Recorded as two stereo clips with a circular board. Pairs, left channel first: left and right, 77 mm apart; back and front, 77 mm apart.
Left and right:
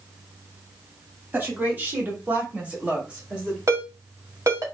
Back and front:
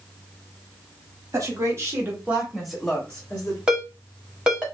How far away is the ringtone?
About 1.2 m.